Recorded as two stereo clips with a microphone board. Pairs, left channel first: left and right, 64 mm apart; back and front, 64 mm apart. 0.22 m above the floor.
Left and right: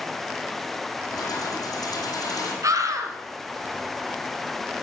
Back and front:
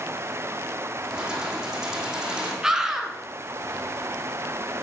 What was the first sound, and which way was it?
Keys jangling, 80° left.